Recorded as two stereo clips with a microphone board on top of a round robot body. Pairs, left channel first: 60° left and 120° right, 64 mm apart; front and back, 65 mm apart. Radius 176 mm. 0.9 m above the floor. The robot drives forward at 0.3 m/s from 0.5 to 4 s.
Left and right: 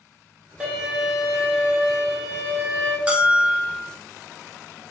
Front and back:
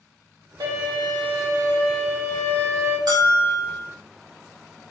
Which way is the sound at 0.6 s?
165° left.